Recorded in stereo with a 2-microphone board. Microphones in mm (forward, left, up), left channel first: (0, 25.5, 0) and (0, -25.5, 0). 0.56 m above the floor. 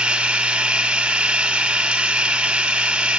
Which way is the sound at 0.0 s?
20° right (ahead or behind).